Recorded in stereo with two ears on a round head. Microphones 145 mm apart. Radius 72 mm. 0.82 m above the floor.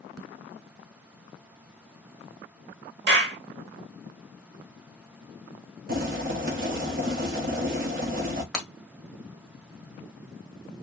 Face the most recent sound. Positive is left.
turn(degrees=5)  # may be behind; listen again after turning